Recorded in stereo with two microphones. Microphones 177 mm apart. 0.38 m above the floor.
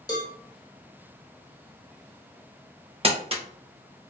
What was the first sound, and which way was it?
A cowbell, 25° left (ahead or behind).